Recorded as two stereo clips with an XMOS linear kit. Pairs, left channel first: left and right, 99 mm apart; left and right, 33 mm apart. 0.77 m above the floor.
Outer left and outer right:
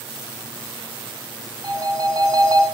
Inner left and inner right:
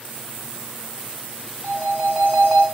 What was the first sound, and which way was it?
A phone ringing, 40° right (ahead or behind).